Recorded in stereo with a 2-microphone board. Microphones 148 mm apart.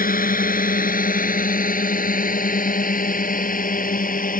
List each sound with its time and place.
0.0 s a drone: 70° left (ahead or behind); by 4.4 s 65° left (ahead or behind)